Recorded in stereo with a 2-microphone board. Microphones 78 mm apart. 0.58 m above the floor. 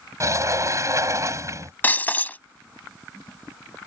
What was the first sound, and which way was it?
A sliding door, 40° right (ahead or behind).